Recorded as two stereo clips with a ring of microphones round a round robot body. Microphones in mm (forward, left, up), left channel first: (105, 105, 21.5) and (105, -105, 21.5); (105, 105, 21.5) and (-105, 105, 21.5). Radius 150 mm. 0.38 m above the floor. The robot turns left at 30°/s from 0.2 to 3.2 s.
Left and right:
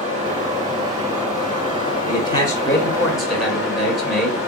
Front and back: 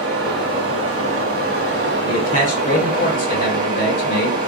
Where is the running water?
155° right, 2.5 m; by 4.5 s 115° left, 2.5 m.